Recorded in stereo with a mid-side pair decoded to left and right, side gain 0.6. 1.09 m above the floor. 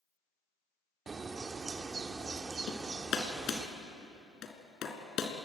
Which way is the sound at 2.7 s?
50° left.